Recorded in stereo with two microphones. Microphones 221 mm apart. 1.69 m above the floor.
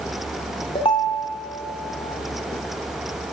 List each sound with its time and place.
0.8 s a ringtone: 25° left (ahead or behind), 1.8 m